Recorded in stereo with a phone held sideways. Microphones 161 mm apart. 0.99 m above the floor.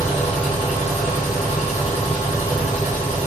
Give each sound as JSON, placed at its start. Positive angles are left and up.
{"t": 0.0, "sound": "a machine running", "side_deg": 45, "distance_m": 1.1}